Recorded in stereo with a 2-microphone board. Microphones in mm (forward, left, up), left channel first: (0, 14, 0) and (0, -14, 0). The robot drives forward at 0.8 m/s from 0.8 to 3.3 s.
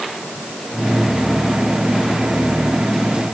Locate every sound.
Only background noise.